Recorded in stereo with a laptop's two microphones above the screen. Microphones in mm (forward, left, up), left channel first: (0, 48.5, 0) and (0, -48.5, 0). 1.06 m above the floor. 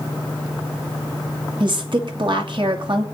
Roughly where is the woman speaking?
Right.